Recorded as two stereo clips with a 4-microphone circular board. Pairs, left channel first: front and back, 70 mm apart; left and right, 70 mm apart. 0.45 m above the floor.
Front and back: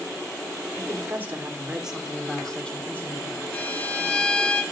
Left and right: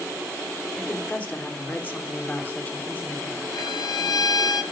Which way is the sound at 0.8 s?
150° left.